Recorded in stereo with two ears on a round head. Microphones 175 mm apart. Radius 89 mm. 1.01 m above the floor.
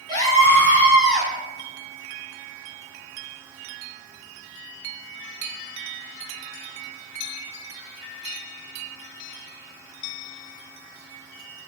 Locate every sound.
0.1 s a scream: 20° left (ahead or behind), 2.5 m; by 1.3 s centre (ahead or behind), 2.5 m